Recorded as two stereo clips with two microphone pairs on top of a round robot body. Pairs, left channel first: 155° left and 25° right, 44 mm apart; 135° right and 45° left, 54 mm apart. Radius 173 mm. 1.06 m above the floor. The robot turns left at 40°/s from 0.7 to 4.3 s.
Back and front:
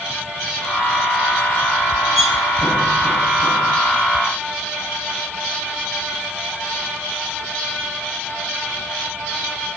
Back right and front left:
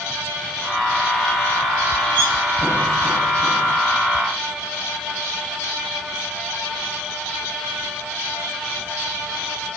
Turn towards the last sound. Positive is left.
turn(degrees=-160)